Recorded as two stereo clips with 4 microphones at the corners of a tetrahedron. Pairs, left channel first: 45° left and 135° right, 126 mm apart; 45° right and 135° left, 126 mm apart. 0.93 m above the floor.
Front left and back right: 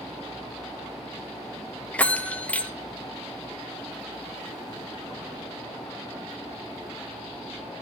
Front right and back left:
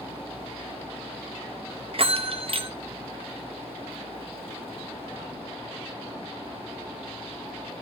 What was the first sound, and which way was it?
A bell, 120° left.